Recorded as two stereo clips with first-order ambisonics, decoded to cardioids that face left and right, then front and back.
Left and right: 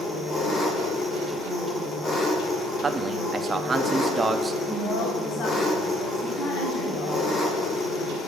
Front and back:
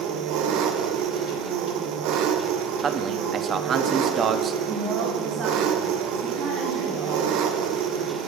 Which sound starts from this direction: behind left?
A woman speaking, at 4.7 s.